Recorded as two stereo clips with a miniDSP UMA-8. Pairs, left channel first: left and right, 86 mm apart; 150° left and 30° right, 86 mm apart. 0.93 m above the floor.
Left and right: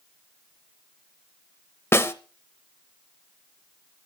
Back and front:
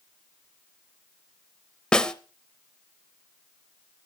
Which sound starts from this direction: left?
A snare drum, at 1.9 s.